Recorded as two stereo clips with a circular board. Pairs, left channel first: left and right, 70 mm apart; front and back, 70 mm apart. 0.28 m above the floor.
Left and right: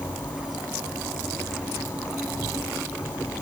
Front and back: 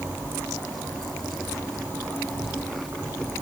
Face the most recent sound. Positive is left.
turn(degrees=130)